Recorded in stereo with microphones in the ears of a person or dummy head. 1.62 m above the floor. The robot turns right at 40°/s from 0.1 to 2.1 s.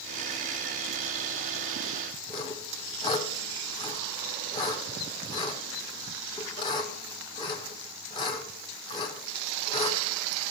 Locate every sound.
2.3 s sawing: 25° left (ahead or behind), 1.1 m